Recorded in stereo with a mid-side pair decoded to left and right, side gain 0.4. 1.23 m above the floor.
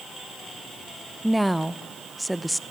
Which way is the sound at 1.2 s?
5° right.